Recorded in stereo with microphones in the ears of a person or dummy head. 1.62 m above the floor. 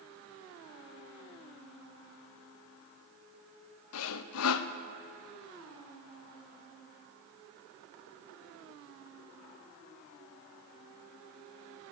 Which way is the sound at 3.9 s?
75° left (ahead or behind).